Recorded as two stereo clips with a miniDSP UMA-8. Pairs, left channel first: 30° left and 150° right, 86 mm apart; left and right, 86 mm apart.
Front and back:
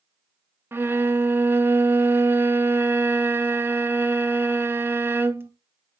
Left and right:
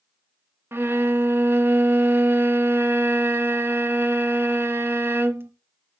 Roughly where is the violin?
Behind right.